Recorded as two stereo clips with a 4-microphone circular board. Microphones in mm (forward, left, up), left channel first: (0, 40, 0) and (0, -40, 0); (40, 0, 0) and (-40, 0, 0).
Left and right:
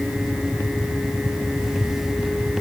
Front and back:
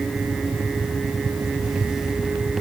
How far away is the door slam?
No door slam in this recording.